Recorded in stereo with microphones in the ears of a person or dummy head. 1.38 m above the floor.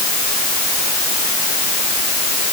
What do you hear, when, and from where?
Only background noise.